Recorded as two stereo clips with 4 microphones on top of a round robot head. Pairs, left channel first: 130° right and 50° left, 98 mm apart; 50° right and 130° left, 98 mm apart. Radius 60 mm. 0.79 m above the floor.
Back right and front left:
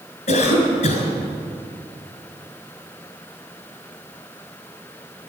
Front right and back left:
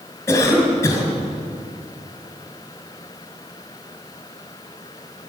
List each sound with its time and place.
0.3 s a cough: 115° right, 4.5 m